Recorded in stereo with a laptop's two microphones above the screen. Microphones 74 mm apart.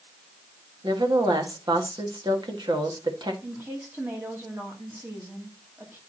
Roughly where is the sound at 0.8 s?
Right.